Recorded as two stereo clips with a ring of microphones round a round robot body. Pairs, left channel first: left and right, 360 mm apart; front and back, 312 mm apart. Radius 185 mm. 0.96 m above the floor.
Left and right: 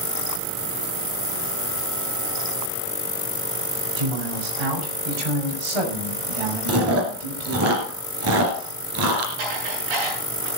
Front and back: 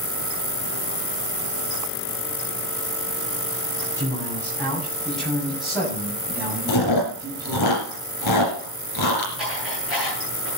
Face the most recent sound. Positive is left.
turn(degrees=-90)